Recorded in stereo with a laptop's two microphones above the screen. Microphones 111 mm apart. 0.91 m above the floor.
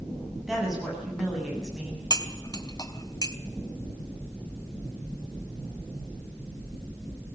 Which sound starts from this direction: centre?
A woman speaking, at 0.5 s.